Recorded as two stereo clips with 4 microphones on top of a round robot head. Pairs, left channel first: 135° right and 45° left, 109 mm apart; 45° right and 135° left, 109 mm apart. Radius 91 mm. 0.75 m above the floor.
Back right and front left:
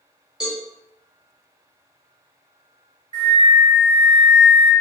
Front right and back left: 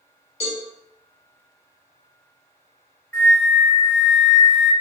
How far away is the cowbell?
About 0.7 m.